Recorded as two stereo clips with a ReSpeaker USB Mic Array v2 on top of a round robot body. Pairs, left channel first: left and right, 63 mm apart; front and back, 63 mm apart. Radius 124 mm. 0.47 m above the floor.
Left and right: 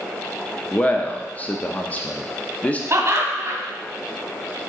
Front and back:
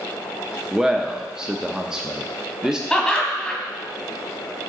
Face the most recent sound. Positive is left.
turn(degrees=-75)